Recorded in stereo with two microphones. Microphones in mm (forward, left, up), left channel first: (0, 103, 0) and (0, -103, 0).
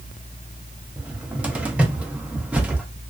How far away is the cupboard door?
About 0.5 m.